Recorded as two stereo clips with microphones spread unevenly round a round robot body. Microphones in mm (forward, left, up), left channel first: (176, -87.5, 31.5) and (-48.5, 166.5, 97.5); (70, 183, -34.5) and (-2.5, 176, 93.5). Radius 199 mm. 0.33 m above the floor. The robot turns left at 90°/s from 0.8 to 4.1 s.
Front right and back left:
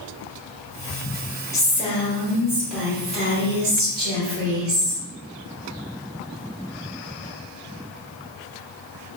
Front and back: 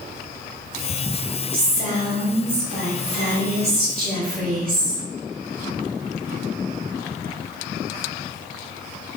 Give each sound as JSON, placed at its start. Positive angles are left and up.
{"t": 1.5, "sound": "a woman speaking", "azimuth_deg": -10, "distance_m": 1.2}